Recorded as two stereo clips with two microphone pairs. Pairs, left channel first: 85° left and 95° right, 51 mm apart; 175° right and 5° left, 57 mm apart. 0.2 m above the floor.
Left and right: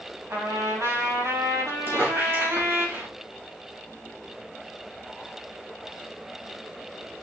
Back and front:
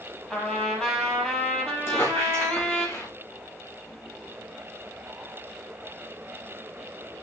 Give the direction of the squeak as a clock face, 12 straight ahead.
4 o'clock.